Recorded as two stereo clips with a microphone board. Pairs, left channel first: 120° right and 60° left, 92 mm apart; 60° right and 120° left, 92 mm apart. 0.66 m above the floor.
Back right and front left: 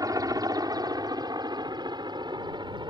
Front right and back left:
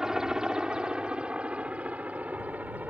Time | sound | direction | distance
0.0 | a helicopter | 40° left | ?